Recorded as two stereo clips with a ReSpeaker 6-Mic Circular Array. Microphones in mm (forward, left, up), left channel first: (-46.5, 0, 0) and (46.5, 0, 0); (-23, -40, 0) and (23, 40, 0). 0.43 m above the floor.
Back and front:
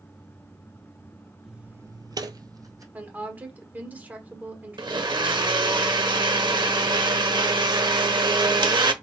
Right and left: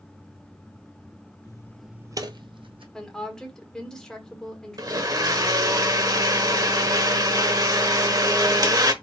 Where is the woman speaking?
45° right, 1.4 m.